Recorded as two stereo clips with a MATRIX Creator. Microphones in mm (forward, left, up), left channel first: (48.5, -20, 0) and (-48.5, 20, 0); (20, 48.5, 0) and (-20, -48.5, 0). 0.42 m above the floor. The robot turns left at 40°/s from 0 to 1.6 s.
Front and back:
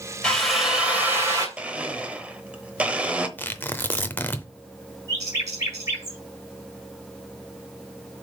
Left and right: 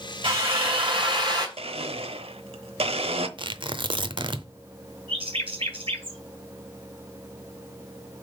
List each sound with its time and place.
0.2 s a drill: 100° right, 2.5 m; by 1.5 s 150° right, 2.5 m
1.6 s a blender: 125° right, 0.8 m
3.4 s tearing paper: 90° right, 0.6 m
5.1 s a bird: 145° right, 4 m